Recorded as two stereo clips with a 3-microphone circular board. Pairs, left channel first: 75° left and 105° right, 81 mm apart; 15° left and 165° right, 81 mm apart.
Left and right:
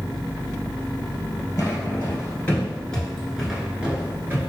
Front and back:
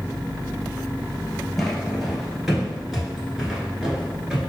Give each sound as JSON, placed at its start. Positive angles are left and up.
{"t": 1.6, "sound": "footsteps", "azimuth_deg": 100, "distance_m": 1.4}